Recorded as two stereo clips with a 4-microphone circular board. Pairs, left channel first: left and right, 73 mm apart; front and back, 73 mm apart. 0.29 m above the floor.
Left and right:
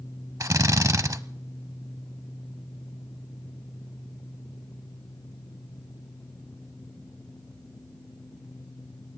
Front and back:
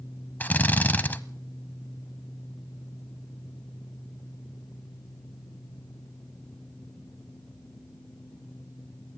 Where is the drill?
60° right, 0.7 m.